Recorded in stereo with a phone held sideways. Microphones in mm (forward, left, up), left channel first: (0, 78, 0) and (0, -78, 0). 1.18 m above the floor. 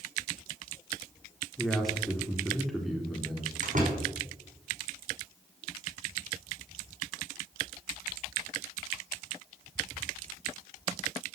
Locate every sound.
1.6 s a man speaking: centre (ahead or behind), 3 m
3.6 s a door slam: 55° right (ahead or behind), 6 m